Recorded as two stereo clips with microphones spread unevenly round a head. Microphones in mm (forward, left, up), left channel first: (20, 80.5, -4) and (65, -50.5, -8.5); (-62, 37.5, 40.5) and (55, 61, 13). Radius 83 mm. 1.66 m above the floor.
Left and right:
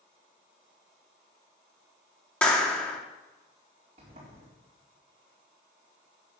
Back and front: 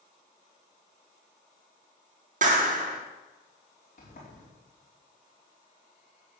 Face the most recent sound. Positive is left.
turn(degrees=-130)